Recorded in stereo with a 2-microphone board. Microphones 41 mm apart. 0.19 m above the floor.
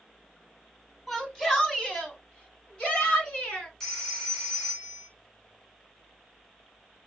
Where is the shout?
5° left (ahead or behind), 1.7 m; by 3.7 s 25° left (ahead or behind), 3 m.